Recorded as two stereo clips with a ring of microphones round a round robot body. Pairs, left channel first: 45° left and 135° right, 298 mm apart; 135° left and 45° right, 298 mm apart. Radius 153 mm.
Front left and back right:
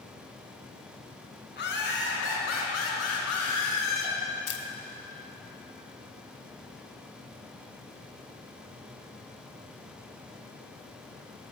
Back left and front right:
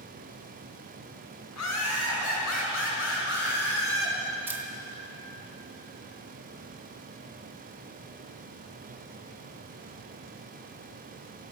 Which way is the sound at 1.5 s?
100° left.